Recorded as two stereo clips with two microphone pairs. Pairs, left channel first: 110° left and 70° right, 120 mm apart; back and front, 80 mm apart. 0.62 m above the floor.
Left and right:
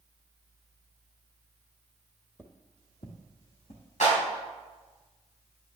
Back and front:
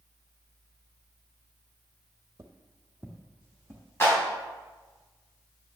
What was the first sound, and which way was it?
Footsteps, 40° left.